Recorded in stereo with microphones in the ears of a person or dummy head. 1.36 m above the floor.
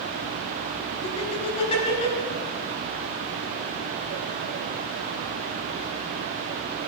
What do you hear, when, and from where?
1.0 s laughter: 35° left (ahead or behind), 4.5 m